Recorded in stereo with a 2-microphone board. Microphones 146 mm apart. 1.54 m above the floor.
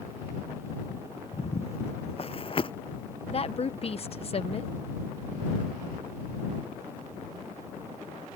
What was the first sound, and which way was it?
Footsteps, 50° left (ahead or behind).